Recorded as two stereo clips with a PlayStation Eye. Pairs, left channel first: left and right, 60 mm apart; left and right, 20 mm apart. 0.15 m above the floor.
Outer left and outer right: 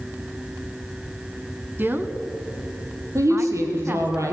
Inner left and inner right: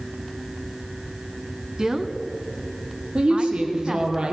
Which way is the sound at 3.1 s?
55° right (ahead or behind).